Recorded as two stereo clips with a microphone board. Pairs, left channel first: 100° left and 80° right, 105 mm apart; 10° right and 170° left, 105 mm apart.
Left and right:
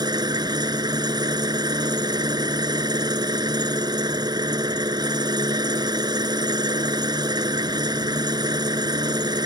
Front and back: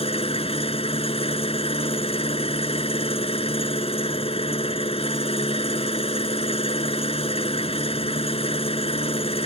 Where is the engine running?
30° right.